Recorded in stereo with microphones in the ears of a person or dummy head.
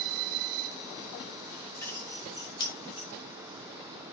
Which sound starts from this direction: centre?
Keys jangling, at 1.8 s.